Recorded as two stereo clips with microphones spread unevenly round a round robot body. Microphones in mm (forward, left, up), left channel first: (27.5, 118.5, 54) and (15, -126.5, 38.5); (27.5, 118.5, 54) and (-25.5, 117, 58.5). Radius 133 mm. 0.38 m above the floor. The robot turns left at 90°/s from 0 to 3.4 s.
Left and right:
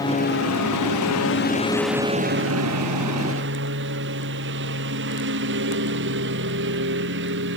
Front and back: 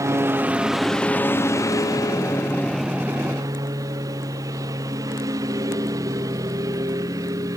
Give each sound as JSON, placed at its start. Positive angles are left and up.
{"t": 0.0, "sound": "a lawn mower", "azimuth_deg": 165}